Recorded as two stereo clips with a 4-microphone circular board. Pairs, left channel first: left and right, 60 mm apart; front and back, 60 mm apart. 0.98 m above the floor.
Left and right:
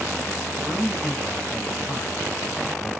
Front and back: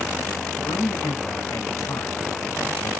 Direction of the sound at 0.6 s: Straight ahead.